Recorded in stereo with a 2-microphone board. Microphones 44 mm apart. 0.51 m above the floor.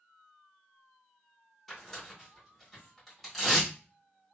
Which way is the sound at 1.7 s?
5° left (ahead or behind).